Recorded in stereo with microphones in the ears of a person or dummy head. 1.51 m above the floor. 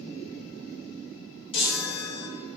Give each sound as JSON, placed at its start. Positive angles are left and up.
{"t": 1.5, "sound": "a chime", "side_deg": 30, "distance_m": 0.7}